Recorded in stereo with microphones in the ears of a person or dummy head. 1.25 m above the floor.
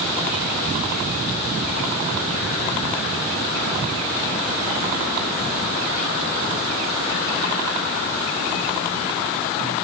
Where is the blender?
I don't hear a blender.